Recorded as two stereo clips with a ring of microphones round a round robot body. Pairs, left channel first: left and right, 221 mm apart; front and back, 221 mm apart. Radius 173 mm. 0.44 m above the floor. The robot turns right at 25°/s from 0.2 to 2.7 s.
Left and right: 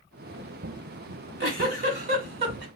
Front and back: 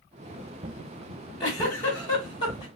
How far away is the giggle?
About 1.4 m.